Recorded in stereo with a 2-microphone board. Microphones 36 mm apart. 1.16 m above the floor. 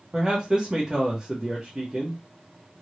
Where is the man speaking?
20° right (ahead or behind), 0.9 m.